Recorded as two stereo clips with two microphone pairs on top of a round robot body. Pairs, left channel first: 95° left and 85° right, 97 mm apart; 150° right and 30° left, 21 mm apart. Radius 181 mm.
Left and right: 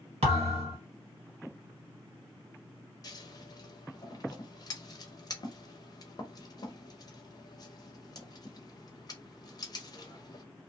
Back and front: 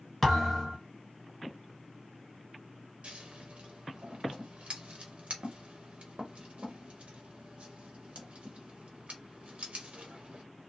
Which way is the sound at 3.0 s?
45° left.